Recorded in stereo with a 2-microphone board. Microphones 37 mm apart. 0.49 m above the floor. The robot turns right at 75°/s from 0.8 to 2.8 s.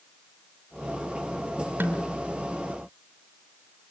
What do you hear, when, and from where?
1.8 s a snare drum: 80° right, 3 m; by 2.2 s 70° right (ahead or behind), 3 m